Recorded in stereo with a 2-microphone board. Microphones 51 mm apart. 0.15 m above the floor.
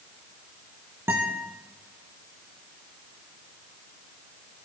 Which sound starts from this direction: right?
A guitar, at 1.1 s.